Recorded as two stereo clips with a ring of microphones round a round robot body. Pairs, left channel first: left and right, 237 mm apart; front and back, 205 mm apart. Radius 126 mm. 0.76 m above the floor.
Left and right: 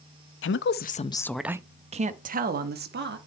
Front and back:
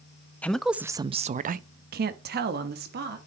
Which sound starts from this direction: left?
A woman speaking, at 0.4 s.